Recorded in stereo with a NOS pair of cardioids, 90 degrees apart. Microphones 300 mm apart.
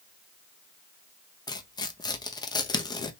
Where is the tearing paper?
15° left, 0.7 m.